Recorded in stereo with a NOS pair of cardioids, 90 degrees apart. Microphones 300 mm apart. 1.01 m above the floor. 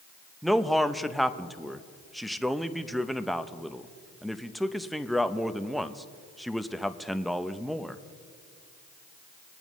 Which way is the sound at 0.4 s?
Straight ahead.